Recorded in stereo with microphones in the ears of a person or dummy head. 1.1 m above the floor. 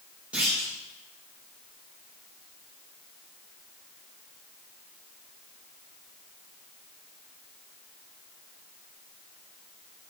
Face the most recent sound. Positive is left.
turn(degrees=-10)  # may be behind; listen again after turning